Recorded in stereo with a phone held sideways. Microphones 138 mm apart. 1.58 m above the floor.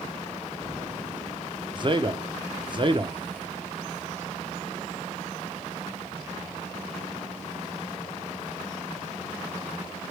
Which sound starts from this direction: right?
A man speaking, at 1.8 s.